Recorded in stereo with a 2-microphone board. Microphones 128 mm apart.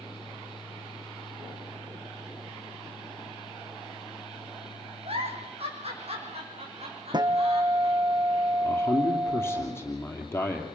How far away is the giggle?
About 4 m.